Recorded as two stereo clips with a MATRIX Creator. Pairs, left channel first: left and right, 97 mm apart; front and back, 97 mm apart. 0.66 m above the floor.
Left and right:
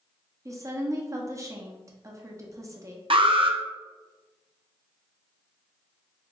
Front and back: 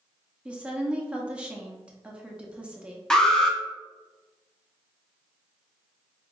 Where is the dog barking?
No dog barking in this recording.